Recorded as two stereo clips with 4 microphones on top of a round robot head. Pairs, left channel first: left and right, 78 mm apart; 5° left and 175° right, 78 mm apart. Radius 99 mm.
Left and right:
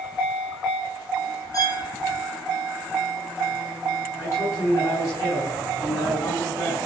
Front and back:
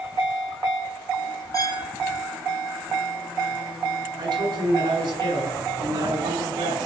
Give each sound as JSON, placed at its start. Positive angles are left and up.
{"t": 1.5, "sound": "a violin", "azimuth_deg": 50, "distance_m": 3.0}
{"t": 4.2, "sound": "a man speaking", "azimuth_deg": 150, "distance_m": 8.0}